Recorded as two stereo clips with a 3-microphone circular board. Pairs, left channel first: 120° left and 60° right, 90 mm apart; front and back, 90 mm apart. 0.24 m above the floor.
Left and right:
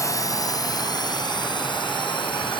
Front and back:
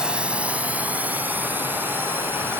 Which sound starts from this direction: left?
A drone, at 0.0 s.